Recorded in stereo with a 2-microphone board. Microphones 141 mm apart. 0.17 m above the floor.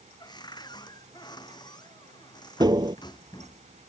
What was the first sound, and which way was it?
A cupboard door, 30° left (ahead or behind).